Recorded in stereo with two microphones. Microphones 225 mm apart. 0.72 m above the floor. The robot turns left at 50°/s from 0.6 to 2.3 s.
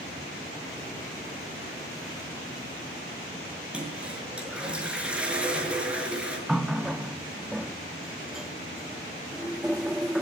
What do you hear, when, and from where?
3.7 s a toilet flushing: 5° right (ahead or behind), 6 m
6.5 s a running tap: centre (ahead or behind), 0.7 m